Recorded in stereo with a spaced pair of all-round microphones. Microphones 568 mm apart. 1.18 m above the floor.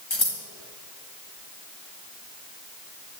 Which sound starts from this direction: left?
Scissors, at 0.1 s.